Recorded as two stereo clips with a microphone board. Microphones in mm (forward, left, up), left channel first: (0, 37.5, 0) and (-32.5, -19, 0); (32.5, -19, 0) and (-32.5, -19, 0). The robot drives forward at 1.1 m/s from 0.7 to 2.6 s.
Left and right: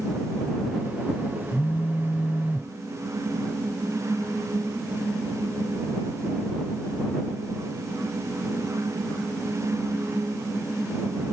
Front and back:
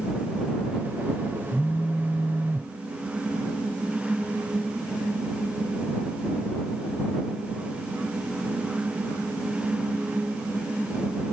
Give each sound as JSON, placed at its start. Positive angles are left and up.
{"t": 1.5, "sound": "a phone buzzing", "azimuth_deg": 60}